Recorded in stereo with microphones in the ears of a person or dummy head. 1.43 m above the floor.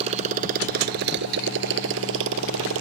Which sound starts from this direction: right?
A motorcycle, at 0.0 s.